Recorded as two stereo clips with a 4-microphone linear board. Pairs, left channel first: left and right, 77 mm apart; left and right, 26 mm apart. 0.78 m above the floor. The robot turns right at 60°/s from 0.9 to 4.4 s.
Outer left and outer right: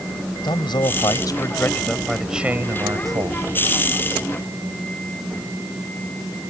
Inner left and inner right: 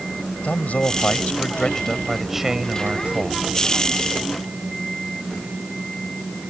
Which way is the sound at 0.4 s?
105° left.